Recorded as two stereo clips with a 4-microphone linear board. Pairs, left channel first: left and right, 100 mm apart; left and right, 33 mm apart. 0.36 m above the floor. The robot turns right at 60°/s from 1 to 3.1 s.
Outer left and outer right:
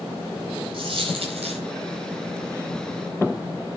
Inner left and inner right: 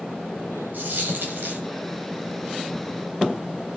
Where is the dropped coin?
125° right, 4 m; by 1.6 s 85° right, 4 m.